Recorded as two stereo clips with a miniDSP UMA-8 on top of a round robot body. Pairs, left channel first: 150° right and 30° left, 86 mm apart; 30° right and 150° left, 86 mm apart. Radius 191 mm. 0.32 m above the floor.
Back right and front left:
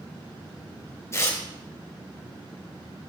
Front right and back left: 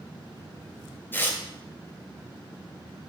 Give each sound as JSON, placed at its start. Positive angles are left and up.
{"t": 1.1, "sound": "tearing paper", "azimuth_deg": -95, "distance_m": 2.5}